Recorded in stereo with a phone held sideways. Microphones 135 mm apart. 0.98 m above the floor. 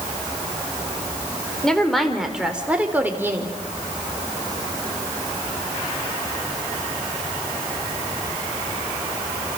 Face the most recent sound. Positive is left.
turn(degrees=-20)  # may be behind; listen again after turning